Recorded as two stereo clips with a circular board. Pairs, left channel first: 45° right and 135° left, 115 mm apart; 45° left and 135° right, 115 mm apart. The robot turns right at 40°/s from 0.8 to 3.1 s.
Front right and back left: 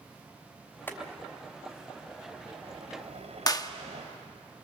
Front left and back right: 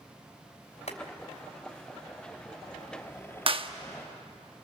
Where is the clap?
100° right, 1.0 m.